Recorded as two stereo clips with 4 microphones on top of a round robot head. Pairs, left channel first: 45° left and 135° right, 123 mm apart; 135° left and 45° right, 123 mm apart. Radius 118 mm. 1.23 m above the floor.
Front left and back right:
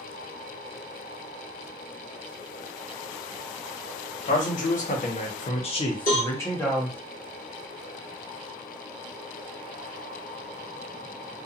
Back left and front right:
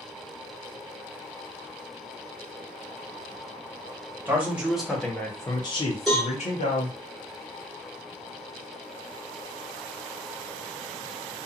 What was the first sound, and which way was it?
A man speaking, 30° left.